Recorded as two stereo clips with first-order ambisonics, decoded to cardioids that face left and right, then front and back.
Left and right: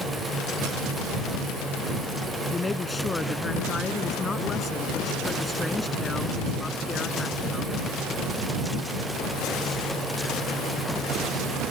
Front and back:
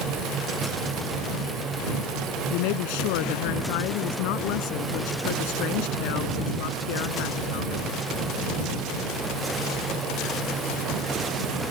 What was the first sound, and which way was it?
A woman speaking, 10° left.